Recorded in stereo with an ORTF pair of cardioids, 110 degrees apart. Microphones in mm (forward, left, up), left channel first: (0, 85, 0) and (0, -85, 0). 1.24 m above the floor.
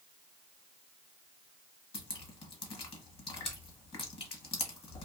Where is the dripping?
30° left, 1.1 m.